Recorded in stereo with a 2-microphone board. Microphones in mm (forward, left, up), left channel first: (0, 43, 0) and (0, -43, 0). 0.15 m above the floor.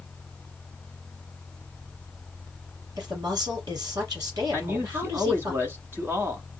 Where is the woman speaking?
50° right (ahead or behind), 4 m.